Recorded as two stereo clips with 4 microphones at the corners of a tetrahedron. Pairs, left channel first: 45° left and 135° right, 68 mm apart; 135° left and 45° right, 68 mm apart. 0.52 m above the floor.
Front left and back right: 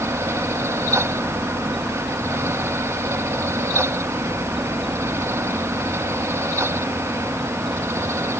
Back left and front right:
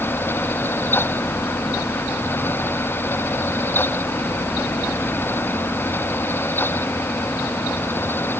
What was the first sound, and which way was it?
Only background noise.